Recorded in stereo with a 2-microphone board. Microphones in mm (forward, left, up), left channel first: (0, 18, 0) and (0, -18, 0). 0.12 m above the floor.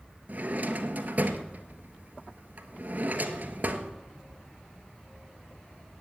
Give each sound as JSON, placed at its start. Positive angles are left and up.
{"t": 0.3, "sound": "a drawer", "side_deg": -50, "distance_m": 1.2}